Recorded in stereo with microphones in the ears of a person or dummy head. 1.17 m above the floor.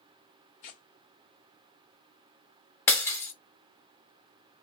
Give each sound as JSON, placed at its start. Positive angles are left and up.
{"t": 0.6, "sound": "tearing paper", "side_deg": 30, "distance_m": 0.6}
{"t": 2.9, "sound": "breaking glass", "side_deg": 15, "distance_m": 0.6}